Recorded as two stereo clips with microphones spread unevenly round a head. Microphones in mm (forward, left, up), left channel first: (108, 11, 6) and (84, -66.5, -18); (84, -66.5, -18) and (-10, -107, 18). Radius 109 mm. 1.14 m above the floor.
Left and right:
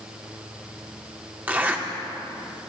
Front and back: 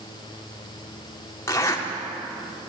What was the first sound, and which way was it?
A zipper, 40° right.